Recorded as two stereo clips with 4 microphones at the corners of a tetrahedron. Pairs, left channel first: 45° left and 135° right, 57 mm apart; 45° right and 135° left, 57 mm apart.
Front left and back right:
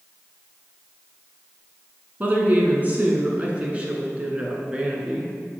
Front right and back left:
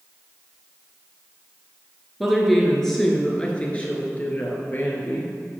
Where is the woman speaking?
140° right, 1.8 m; by 5.3 s 65° right, 2.5 m.